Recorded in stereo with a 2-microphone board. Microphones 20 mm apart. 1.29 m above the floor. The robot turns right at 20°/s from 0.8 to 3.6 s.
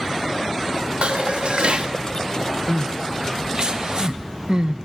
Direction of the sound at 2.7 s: 60° right (ahead or behind).